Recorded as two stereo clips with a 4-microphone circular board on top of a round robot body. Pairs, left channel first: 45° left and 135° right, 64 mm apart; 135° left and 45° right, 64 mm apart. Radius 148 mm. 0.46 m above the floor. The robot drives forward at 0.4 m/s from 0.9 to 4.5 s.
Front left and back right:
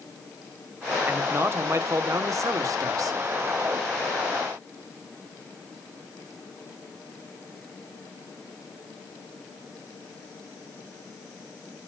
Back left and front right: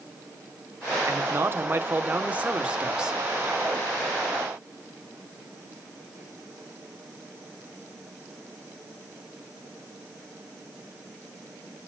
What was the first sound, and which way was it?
A man speaking, 85° right.